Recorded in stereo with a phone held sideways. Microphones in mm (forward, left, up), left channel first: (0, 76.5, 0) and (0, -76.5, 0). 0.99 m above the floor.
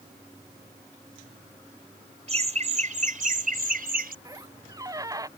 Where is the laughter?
45° right (ahead or behind); by 4.2 s 75° right (ahead or behind).